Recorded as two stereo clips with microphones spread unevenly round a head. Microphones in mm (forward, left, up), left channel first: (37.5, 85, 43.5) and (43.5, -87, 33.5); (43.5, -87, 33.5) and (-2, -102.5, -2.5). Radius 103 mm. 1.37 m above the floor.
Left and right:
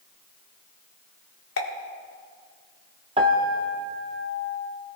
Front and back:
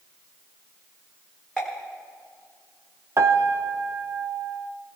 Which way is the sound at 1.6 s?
105° left.